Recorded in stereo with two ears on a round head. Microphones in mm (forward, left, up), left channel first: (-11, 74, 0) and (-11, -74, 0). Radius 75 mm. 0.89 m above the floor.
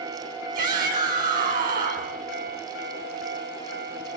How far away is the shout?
About 7.5 m.